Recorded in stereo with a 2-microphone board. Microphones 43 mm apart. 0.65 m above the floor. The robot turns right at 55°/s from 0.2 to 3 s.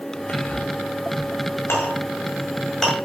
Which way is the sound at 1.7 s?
65° left (ahead or behind).